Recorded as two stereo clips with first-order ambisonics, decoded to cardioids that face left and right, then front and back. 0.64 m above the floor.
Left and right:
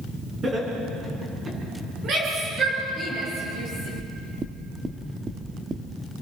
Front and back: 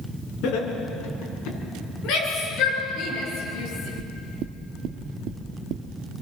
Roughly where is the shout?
Ahead right.